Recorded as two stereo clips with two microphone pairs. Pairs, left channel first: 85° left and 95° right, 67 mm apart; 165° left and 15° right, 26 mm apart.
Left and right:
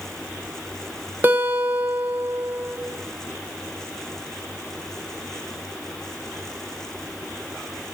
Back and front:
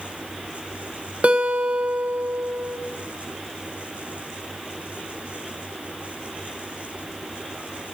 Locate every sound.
1.2 s a guitar: 40° right, 1.1 m